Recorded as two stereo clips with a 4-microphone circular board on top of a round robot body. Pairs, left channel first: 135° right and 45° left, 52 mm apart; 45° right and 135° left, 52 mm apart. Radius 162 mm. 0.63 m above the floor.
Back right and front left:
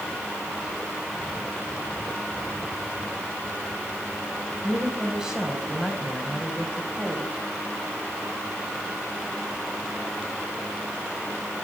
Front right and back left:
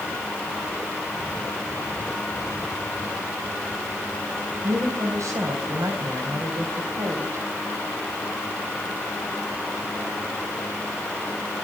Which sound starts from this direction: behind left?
A woman speaking, at 4.6 s.